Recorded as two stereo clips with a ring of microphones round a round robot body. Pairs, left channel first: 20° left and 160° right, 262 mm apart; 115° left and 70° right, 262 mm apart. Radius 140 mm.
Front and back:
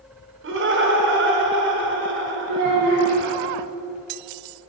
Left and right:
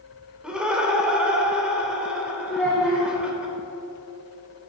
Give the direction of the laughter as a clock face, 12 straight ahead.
5 o'clock.